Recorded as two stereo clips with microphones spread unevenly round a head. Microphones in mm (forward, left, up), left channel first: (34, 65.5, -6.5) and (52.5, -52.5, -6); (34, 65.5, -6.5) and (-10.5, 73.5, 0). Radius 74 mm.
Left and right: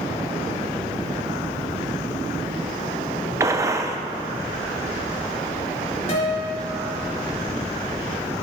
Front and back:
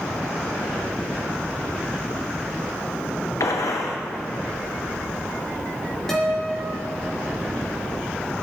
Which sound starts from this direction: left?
A guitar, at 6.1 s.